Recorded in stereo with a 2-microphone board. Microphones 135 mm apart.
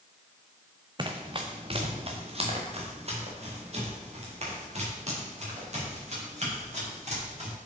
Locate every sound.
1.0 s running footsteps: 30° right (ahead or behind), 1.0 m; by 7.5 s 50° right (ahead or behind), 6 m